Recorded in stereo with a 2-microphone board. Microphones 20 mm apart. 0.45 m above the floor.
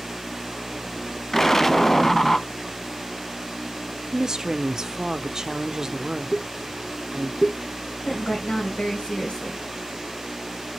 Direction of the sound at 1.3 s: 20° left (ahead or behind).